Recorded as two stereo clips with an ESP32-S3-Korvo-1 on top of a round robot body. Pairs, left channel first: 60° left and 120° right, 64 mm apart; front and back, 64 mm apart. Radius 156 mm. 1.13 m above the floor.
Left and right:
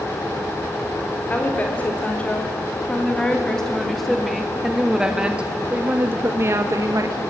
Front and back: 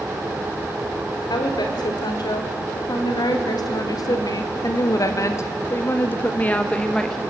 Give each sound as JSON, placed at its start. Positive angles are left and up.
{"t": 1.3, "sound": "a woman speaking", "azimuth_deg": -10, "distance_m": 3.0}